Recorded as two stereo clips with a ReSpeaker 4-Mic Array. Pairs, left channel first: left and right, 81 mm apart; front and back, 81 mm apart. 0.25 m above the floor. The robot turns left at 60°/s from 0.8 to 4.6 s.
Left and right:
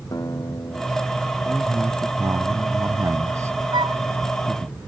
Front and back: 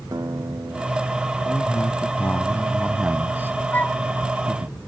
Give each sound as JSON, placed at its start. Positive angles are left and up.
{"t": 0.1, "sound": "a guitar", "azimuth_deg": 135}
{"t": 1.4, "sound": "a man speaking", "azimuth_deg": -5}
{"t": 3.7, "sound": "a flute", "azimuth_deg": -65}